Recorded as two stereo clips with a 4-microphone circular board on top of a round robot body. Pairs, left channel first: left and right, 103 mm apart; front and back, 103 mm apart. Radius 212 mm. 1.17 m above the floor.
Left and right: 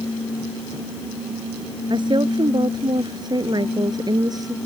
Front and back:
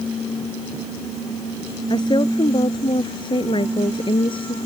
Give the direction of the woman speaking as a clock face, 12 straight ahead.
2 o'clock.